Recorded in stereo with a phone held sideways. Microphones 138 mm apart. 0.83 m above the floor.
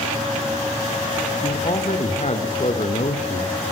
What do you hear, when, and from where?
1.4 s a man speaking: 55° left (ahead or behind), 3.5 m